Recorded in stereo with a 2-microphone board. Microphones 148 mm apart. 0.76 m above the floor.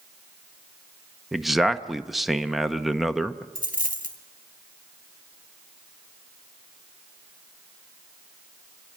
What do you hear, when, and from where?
1.3 s a man speaking: centre (ahead or behind), 0.7 m
3.5 s a dropped coin: 70° left (ahead or behind), 1.9 m